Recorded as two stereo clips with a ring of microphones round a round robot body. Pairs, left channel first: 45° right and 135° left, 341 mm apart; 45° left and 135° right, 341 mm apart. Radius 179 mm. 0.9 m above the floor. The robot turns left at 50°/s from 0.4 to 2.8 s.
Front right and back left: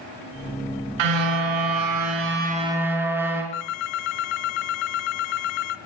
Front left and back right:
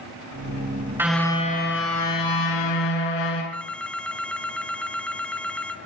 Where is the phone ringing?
40° right, 1.2 m.